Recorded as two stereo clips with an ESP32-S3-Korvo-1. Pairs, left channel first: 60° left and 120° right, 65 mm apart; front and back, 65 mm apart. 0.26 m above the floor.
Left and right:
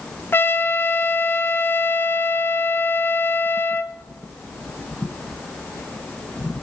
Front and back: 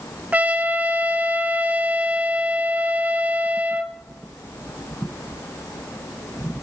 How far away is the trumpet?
About 1.0 m.